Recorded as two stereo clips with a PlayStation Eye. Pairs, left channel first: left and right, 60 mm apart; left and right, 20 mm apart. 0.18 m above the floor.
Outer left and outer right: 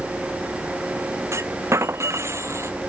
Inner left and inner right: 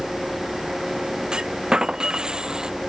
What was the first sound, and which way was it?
A clunk, 45° right (ahead or behind).